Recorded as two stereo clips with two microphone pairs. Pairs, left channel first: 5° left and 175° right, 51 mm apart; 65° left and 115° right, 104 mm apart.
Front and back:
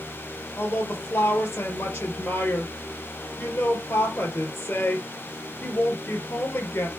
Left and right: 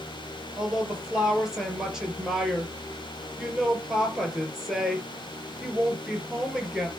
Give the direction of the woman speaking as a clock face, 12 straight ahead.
1 o'clock.